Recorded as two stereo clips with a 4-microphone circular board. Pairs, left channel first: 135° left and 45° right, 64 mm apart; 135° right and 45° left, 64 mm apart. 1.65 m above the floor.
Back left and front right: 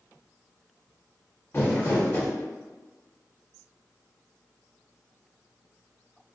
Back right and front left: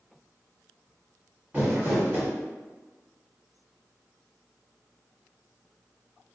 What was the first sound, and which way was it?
Crumpling, 100° left.